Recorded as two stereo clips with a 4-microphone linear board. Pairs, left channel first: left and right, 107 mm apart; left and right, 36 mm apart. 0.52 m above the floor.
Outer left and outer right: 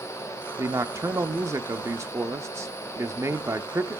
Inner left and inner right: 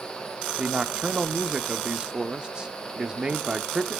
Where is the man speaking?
30° right (ahead or behind), 0.7 m.